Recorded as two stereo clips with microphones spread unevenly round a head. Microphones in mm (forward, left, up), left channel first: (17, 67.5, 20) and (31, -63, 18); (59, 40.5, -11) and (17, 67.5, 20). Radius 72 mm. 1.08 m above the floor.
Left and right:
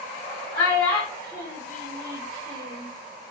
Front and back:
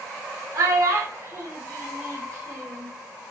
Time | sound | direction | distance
0.5 | a child speaking | 155° left | 0.8 m